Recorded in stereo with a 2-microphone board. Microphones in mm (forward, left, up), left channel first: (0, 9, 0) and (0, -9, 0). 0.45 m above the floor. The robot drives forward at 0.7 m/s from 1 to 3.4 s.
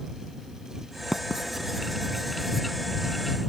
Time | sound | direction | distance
1.1 | writing | 30° right (ahead or behind) | ?